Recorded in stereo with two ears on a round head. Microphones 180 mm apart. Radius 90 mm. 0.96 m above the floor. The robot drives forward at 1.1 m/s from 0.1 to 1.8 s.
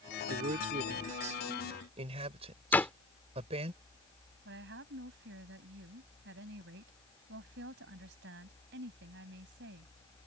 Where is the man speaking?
45° right (ahead or behind); by 3.7 s 30° right (ahead or behind).